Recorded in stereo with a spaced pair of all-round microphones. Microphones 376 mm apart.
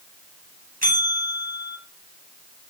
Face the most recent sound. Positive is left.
turn(degrees=-20)  # may be behind; listen again after turning